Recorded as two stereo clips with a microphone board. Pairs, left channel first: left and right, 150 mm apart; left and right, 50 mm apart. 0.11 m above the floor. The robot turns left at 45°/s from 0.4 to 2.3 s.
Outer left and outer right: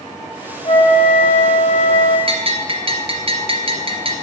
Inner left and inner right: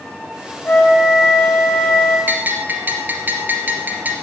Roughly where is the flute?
Behind left.